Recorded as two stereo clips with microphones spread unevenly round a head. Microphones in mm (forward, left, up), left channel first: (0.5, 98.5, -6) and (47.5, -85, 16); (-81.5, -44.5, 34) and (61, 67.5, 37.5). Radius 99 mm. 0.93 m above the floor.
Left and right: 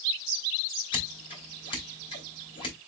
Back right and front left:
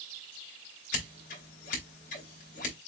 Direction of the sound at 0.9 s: 170° left.